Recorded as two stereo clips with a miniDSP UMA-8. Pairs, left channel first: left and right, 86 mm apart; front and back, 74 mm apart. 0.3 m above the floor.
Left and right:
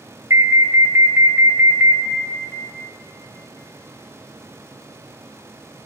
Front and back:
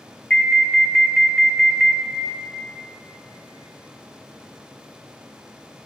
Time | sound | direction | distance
0.3 | an alarm | 65° right | 0.8 m